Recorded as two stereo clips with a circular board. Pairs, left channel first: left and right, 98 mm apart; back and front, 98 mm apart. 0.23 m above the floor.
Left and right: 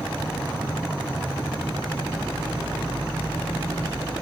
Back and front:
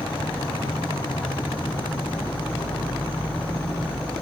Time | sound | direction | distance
0.0 | an insect | 160° left | 4 m